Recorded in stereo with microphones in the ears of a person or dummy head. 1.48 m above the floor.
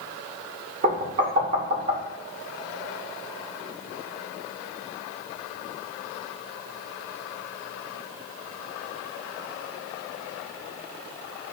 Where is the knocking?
60° right (ahead or behind), 3 m.